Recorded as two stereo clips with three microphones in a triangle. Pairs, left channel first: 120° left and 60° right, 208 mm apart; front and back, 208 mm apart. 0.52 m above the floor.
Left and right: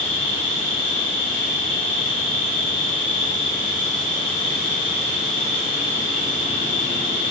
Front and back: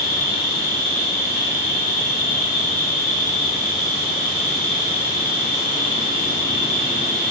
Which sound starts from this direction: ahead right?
An insect, at 0.0 s.